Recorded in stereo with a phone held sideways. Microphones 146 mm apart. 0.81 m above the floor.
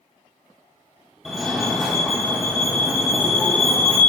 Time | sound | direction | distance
1.2 | a fire alarm | centre (ahead or behind) | 1.3 m